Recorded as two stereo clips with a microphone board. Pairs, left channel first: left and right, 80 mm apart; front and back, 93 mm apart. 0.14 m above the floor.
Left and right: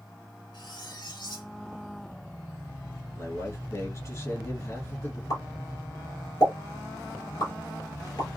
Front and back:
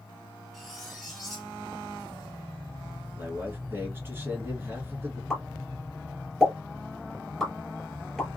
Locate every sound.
0.5 s cutlery clinking: 85° left, 1.7 m
3.2 s a man speaking: 120° left, 1.8 m
5.3 s a pop: 85° left, 2.5 m